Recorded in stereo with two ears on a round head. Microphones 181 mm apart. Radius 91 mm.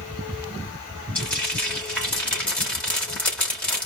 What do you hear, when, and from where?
1.1 s frying: 5° left (ahead or behind), 3.5 m